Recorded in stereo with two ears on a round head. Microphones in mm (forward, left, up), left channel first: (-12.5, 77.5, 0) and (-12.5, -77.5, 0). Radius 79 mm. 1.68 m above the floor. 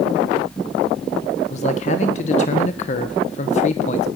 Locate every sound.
1.5 s a man speaking: 40° left (ahead or behind), 1.4 m